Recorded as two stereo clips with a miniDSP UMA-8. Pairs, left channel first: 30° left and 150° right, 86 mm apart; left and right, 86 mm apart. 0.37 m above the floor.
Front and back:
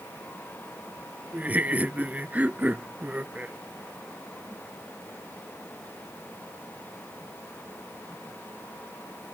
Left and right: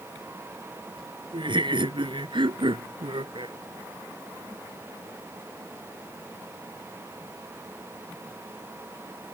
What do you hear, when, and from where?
1.3 s laughter: 80° right